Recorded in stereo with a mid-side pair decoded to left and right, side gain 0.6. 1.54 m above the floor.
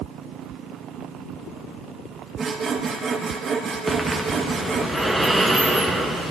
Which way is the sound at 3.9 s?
Straight ahead.